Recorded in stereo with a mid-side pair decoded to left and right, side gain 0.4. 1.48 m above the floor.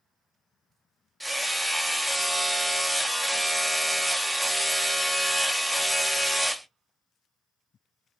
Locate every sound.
1.2 s hammering: 10° right, 0.7 m